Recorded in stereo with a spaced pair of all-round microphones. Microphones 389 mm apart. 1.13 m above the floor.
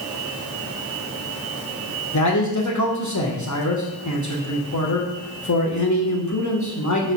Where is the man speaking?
50° left (ahead or behind), 0.8 m.